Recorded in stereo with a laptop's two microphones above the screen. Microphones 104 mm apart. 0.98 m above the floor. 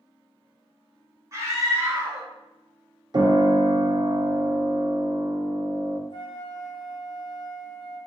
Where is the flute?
45° left (ahead or behind), 0.9 m.